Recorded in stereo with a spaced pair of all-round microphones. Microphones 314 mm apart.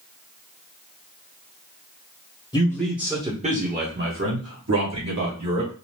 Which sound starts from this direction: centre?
A man speaking, at 2.5 s.